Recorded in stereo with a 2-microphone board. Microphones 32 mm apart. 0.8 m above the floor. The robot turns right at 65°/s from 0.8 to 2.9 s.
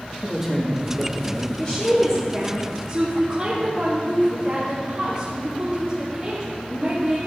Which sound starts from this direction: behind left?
A woman speaking, at 1.6 s.